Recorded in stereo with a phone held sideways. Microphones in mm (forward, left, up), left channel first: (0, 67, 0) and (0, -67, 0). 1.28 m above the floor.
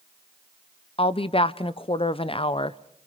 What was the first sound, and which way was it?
A woman speaking, 45° left (ahead or behind).